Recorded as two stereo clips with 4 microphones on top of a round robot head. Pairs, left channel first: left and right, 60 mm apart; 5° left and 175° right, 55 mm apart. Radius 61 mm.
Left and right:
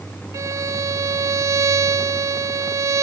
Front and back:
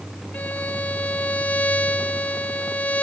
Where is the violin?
65° right, 1.8 m.